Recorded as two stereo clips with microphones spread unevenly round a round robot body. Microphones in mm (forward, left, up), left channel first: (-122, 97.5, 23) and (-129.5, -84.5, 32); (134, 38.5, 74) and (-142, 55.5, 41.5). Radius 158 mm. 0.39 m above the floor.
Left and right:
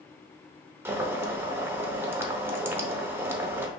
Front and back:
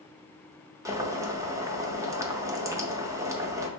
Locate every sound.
0.8 s boiling: 155° right, 0.6 m